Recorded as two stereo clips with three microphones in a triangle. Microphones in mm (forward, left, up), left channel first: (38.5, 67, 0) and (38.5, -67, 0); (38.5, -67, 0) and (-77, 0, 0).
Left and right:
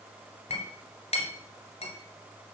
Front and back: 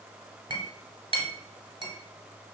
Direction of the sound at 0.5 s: 110° left.